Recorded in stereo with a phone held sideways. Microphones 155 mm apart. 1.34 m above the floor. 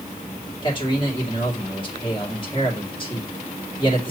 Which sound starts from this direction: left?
A man speaking, at 0.6 s.